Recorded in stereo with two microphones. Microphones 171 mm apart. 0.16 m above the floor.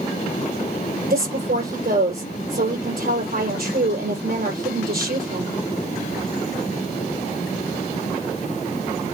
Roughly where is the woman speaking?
Right.